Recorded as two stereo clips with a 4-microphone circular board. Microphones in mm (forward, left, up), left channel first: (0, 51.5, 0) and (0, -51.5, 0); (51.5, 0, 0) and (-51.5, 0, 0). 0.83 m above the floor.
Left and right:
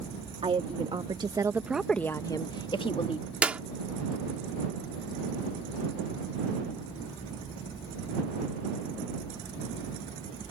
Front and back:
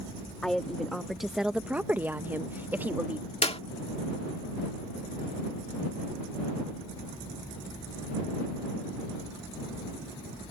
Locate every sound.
0.4 s a woman speaking: 85° right; by 3.3 s 110° left
3.4 s a clap: 15° right